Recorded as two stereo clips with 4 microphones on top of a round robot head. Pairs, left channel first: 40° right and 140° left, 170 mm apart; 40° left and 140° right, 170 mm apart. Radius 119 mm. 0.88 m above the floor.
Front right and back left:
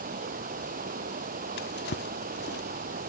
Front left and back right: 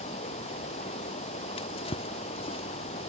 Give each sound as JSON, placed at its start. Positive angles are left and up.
{"t": 0.0, "sound": "running water", "azimuth_deg": 100}
{"t": 1.6, "sound": "a drawer", "azimuth_deg": -15}